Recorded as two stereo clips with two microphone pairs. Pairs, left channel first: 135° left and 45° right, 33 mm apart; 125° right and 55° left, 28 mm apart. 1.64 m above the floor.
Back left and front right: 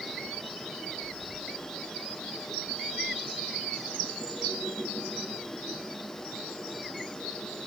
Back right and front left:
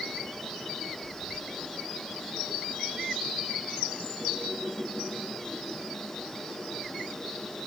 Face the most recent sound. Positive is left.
No sound to turn to.